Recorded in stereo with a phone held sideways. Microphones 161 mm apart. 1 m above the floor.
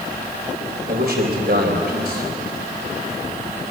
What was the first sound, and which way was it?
A man speaking, 70° right (ahead or behind).